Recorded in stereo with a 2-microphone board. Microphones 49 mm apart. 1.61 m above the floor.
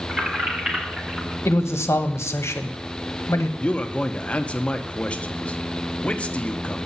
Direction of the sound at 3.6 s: 25° left (ahead or behind).